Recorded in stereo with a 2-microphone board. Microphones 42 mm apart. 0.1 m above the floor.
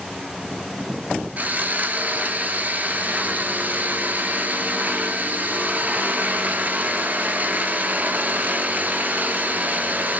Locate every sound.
1.4 s sawing: 40° right (ahead or behind), 0.6 m